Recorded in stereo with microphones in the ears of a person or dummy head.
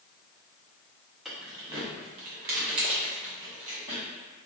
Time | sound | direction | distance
1.2 | keys jangling | 5° right (ahead or behind) | 0.8 m